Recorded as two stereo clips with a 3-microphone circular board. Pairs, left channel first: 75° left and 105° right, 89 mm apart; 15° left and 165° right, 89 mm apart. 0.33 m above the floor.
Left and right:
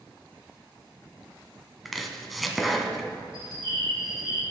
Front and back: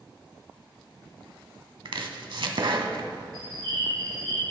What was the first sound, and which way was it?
Chopping, 165° left.